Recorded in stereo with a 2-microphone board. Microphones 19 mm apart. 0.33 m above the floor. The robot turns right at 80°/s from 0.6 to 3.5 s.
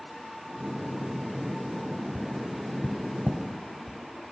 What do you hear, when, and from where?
2.1 s tapping: 15° right (ahead or behind), 2 m; by 4.0 s 60° left (ahead or behind), 2 m